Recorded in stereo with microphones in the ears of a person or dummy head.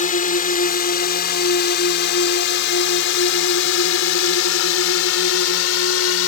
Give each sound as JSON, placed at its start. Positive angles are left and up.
{"t": 0.0, "sound": "a drone", "side_deg": 45}